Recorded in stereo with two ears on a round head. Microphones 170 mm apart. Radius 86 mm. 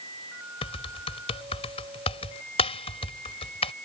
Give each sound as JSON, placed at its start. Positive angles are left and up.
{"t": 0.6, "sound": "typing on a keyboard", "side_deg": 35}